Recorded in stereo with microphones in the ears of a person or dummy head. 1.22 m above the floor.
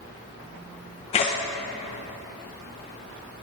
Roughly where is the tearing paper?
Left.